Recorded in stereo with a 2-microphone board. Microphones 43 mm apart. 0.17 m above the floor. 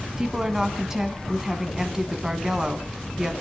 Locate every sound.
0.2 s a woman speaking: 15° right (ahead or behind), 1.4 m